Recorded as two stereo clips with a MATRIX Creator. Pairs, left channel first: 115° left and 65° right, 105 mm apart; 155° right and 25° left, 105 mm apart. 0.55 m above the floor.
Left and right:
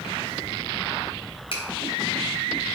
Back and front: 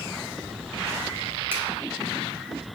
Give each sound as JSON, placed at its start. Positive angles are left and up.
{"t": 1.5, "sound": "a finger snap", "azimuth_deg": 90, "distance_m": 3.0}